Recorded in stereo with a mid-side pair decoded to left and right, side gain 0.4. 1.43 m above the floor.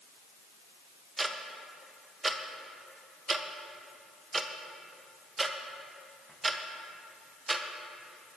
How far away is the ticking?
About 1.2 m.